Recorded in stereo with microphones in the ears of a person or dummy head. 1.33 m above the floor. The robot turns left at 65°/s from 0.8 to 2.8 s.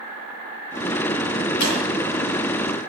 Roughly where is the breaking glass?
Left.